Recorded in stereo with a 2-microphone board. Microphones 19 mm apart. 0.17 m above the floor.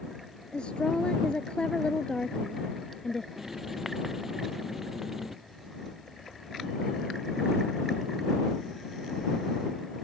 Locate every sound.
0.5 s a woman speaking: 65° left (ahead or behind); by 3.3 s 35° left (ahead or behind)
3.4 s writing: 20° right (ahead or behind)